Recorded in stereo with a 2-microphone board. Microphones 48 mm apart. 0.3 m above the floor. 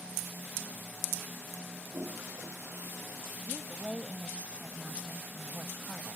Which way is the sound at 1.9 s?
85° right.